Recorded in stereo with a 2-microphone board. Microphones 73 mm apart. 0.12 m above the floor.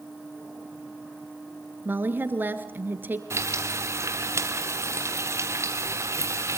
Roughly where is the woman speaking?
Right.